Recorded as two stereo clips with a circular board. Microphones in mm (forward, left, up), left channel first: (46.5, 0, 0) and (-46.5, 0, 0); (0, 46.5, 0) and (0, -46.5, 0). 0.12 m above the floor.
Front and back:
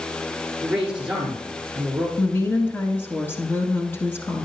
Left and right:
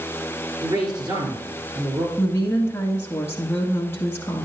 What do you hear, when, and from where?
0.6 s a man speaking: 100° right, 2 m
2.2 s a woman speaking: 45° left, 1.2 m